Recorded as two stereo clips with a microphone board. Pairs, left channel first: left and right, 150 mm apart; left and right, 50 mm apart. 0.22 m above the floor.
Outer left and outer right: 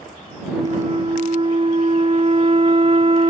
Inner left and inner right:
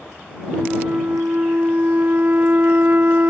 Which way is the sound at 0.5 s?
40° right (ahead or behind).